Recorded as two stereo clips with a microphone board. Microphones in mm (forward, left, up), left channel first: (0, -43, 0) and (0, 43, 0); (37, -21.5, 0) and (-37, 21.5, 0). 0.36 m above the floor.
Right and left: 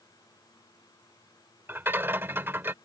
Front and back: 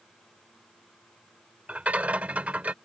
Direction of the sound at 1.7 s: 100° left.